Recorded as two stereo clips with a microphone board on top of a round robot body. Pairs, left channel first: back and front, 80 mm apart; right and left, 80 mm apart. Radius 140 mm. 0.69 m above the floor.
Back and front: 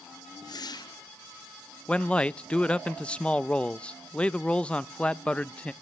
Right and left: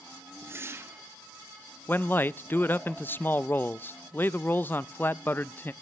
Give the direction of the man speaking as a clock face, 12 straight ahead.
4 o'clock.